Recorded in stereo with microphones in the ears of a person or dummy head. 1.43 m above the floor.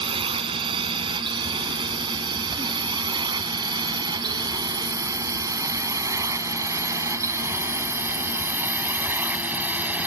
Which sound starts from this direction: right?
A drone, at 0.0 s.